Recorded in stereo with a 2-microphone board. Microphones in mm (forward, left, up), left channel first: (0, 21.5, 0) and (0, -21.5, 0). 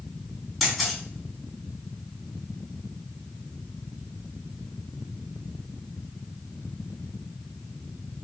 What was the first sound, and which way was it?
A camera shutter, centre (ahead or behind).